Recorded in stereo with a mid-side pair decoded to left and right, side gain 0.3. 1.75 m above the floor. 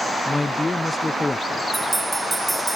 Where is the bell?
25° right.